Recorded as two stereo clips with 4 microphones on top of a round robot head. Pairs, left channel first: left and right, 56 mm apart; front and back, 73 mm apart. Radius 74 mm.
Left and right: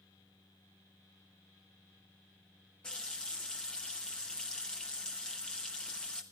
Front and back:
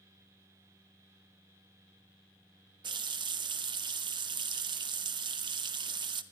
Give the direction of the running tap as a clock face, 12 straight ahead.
6 o'clock.